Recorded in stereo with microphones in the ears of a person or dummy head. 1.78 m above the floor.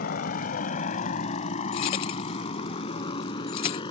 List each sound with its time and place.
0.0 s a motorcycle: 50° left (ahead or behind); by 3.9 s 25° left (ahead or behind)
1.7 s keys jangling: 25° left (ahead or behind)